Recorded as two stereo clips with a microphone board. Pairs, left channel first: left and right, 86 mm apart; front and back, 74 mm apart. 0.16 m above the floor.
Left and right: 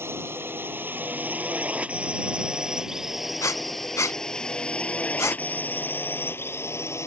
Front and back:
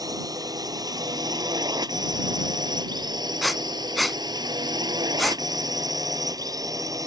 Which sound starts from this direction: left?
Breathing, at 3.4 s.